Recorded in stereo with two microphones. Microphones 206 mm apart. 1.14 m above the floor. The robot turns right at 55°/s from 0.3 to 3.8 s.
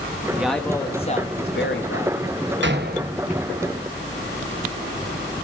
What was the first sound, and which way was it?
A man speaking, 10° right.